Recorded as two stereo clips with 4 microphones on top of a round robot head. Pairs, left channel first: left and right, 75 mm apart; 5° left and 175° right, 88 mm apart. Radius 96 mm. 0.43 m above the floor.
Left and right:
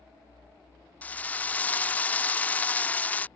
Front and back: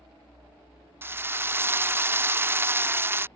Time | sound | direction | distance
1.0 | a drill | 145° left | ?